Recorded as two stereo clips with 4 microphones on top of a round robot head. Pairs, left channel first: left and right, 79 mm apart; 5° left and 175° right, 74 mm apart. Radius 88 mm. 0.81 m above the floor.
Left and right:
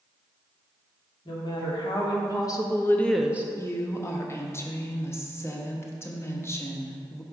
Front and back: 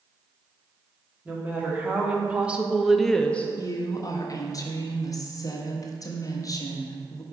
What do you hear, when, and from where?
1.2 s a woman speaking: 115° left, 2.0 m; by 3.5 s 50° right, 0.6 m
3.6 s a woman speaking: 35° left, 1.2 m